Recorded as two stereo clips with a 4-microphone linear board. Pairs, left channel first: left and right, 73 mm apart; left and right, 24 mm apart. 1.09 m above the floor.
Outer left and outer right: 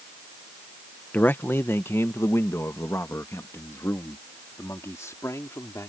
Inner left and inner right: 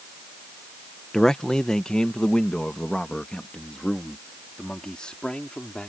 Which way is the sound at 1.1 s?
25° left (ahead or behind).